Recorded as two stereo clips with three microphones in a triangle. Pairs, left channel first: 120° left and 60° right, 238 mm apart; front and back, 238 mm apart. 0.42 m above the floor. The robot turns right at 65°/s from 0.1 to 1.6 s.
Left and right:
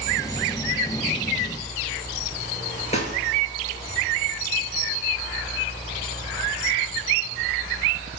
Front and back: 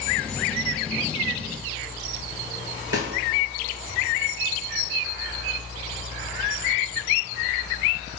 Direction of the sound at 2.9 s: Straight behind.